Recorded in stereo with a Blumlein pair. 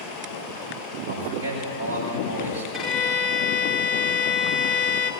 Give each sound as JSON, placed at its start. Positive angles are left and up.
{"t": 1.1, "sound": "a man speaking", "azimuth_deg": -60, "distance_m": 8.0}
{"t": 2.7, "sound": "a violin", "azimuth_deg": -5, "distance_m": 2.5}